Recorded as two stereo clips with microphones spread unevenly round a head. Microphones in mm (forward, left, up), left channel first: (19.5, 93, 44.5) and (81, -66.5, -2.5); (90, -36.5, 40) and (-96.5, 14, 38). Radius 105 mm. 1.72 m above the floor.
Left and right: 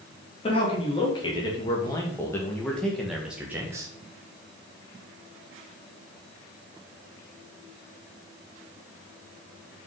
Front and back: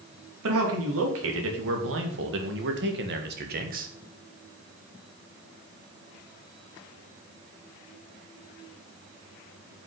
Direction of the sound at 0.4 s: 175° left.